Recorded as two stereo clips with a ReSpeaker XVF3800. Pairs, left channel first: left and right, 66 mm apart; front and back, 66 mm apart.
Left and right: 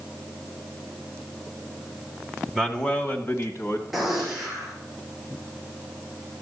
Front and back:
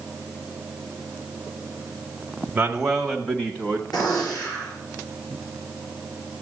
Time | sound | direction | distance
2.5 | a man speaking | straight behind | 1.0 m
3.9 | a gunshot | 5° right | 5 m